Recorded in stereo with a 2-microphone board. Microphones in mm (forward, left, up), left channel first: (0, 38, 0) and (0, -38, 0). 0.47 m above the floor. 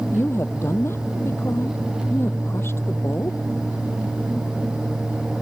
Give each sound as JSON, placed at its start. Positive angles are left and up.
{"t": 0.1, "sound": "a woman speaking", "side_deg": 35}